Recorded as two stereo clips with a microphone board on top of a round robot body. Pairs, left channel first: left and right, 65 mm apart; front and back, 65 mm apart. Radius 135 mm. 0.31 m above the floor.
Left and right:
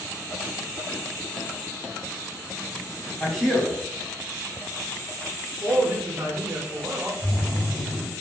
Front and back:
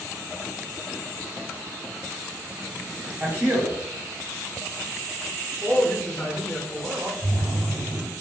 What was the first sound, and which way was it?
A man speaking, 170° left.